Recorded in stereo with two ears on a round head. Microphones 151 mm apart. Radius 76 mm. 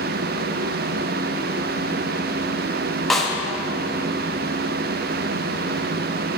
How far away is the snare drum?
About 1.0 m.